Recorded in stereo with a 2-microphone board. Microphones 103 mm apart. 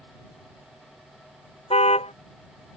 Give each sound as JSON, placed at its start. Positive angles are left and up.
{"t": 1.7, "sound": "a car horn", "side_deg": 80}